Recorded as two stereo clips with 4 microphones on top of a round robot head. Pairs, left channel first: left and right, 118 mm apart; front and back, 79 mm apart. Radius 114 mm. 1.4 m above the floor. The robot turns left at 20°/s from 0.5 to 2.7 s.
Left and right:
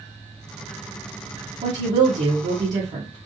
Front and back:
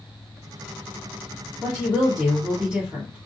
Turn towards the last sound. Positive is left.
turn(degrees=-110)